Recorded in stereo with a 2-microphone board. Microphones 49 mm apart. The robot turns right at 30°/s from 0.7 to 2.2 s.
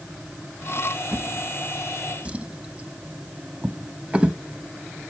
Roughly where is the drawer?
Right.